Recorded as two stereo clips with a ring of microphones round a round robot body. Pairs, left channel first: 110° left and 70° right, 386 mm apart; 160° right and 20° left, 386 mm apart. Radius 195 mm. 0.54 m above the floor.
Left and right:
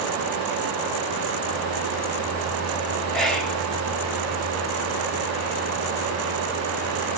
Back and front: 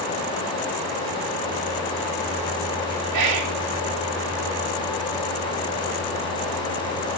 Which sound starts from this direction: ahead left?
Whispering, at 3.1 s.